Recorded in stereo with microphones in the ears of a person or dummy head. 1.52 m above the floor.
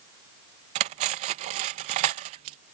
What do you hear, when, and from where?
0.8 s cutlery clinking: 30° right (ahead or behind)